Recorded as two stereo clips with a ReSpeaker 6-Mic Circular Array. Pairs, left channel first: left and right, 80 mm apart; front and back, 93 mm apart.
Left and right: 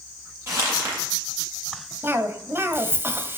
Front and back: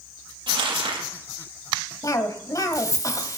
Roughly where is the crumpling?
Behind right.